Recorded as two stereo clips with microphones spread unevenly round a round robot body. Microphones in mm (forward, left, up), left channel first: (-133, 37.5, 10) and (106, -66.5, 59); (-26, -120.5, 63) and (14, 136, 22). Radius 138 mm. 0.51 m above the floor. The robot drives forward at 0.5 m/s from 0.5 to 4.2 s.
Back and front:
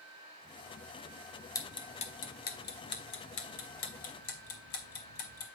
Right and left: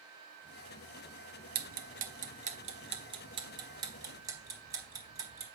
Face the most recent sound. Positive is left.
turn(degrees=155)